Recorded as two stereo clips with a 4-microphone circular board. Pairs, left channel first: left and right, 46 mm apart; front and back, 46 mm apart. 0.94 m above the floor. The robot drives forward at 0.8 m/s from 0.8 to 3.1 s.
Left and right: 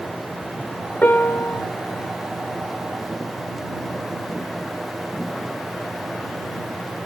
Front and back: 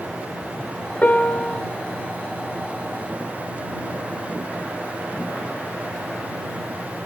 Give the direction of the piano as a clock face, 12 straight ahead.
10 o'clock.